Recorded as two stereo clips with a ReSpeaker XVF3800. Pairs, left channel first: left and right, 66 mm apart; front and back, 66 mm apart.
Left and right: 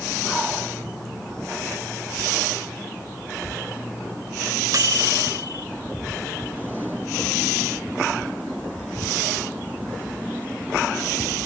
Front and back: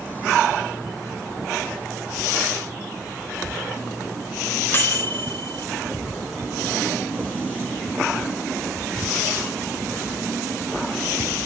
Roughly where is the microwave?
Ahead right.